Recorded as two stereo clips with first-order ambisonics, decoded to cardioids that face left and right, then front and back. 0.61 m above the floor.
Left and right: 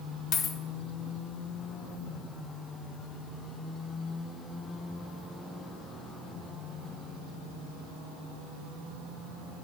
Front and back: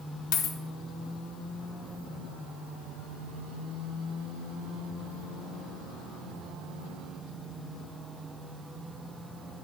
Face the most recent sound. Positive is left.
turn(degrees=35)